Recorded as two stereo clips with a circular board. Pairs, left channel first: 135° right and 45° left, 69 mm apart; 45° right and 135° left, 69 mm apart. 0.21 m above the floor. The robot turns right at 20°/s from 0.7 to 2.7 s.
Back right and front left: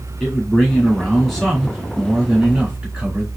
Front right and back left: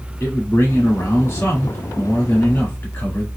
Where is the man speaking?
60° right, 1.5 m; by 3.3 s 20° right, 1.5 m.